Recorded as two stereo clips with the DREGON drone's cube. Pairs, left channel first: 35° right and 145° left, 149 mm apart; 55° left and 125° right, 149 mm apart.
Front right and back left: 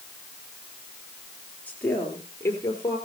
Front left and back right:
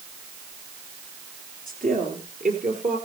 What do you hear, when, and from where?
1.7 s a woman speaking: 115° right, 5 m; by 3.0 s 100° right, 5.5 m